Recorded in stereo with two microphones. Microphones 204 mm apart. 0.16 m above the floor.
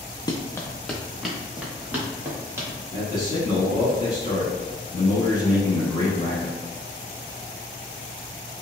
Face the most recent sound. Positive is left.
turn(degrees=20)  # may be behind; listen again after turning